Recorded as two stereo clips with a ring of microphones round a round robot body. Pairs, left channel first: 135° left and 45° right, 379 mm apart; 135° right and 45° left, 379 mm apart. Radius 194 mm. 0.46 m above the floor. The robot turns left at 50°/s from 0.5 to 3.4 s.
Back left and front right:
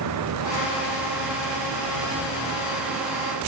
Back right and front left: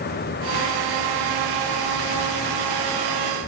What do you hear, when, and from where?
Only background noise.